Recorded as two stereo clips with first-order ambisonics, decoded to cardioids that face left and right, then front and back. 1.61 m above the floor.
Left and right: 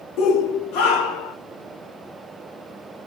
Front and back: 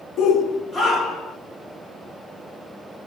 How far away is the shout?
About 0.9 m.